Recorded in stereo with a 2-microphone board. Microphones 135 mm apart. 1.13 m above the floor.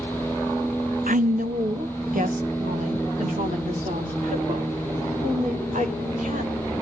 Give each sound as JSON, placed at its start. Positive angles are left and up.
{"t": 1.1, "sound": "a woman speaking", "side_deg": -80, "distance_m": 0.5}